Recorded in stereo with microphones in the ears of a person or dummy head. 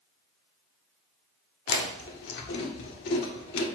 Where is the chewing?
60° left (ahead or behind), 1.6 m.